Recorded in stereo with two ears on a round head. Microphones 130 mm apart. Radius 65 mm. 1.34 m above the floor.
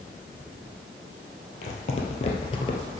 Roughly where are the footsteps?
Left.